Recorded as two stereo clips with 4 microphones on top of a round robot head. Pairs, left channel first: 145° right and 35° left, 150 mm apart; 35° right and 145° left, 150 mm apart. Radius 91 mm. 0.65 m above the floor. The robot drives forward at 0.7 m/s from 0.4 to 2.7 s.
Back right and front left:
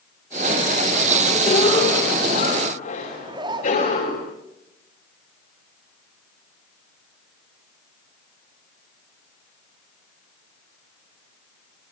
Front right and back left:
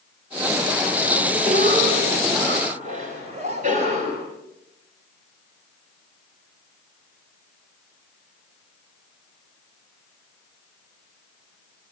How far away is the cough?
About 4 m.